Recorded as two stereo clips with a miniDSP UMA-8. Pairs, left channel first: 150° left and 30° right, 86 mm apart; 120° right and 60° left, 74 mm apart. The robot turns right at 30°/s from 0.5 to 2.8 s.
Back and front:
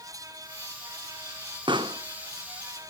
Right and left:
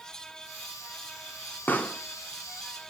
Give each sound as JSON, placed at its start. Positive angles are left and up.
{"t": 1.7, "sound": "a pop", "azimuth_deg": -55, "distance_m": 1.0}